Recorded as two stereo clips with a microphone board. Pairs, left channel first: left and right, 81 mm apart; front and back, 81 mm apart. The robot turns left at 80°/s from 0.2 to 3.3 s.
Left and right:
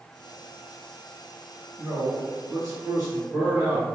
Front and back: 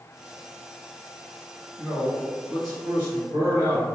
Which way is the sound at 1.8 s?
20° right.